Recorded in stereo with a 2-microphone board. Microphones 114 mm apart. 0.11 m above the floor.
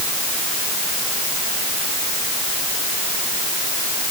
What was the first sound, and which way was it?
Only background noise.